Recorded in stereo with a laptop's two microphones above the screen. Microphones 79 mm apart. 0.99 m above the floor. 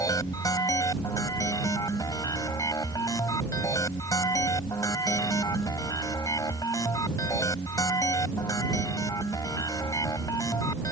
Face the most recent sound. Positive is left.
turn(degrees=55)  # may be behind; listen again after turning